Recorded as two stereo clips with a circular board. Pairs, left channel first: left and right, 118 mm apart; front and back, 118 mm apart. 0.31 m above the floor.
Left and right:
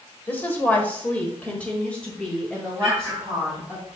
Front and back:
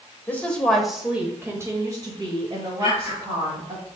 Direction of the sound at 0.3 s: 45° left.